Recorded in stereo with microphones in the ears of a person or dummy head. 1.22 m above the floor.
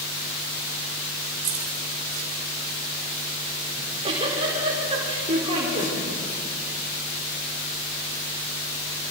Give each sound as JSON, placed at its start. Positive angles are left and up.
{"t": 1.4, "sound": "keys jangling", "side_deg": -40, "distance_m": 2.5}
{"t": 3.8, "sound": "a giggle", "side_deg": -30, "distance_m": 4.5}